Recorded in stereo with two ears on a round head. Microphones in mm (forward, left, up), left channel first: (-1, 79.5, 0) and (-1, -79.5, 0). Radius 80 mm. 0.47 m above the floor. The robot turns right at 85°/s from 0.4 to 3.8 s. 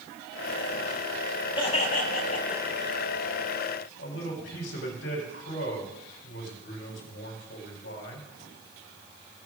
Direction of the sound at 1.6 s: 35° left.